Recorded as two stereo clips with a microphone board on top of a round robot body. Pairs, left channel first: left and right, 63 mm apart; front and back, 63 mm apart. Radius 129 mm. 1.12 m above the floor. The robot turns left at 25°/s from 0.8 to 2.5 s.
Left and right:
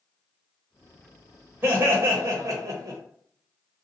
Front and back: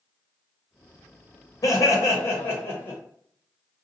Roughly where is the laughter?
Ahead right.